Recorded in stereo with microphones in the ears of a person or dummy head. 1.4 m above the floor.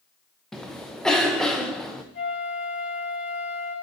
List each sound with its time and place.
0.5 s a cough: centre (ahead or behind), 0.8 m
2.1 s a flute: 55° left (ahead or behind), 3.5 m